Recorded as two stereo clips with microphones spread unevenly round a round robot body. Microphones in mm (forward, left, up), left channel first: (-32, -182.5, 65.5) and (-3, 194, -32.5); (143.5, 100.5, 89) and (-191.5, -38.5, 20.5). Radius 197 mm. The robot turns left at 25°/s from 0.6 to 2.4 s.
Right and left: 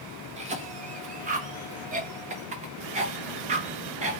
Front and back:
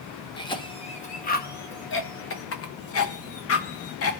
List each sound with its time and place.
0.4 s a cough: 110° left, 0.6 m; by 4.2 s 65° left, 0.6 m